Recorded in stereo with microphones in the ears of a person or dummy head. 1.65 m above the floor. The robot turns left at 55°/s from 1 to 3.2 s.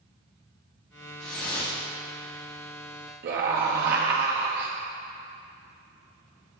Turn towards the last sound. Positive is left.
turn(degrees=-50)  # may be behind; listen again after turning